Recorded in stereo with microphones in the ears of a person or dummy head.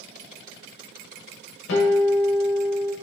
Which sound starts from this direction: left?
A guitar, at 1.7 s.